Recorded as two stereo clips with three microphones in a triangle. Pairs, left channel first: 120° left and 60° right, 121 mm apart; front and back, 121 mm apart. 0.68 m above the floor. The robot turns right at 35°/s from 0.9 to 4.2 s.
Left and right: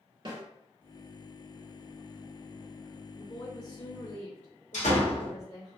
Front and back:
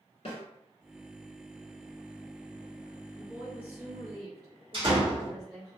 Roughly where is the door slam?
Behind left.